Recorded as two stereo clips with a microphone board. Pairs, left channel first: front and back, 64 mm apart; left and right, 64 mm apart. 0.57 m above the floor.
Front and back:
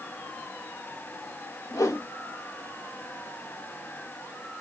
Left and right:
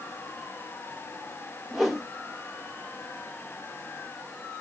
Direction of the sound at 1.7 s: Straight ahead.